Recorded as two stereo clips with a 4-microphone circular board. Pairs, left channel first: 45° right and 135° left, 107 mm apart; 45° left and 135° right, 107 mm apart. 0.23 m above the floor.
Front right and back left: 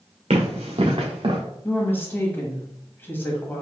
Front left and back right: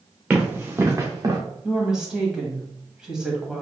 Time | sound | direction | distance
0.3 | running footsteps | 145° left | 1.3 m
1.6 | a woman speaking | 60° right | 1.0 m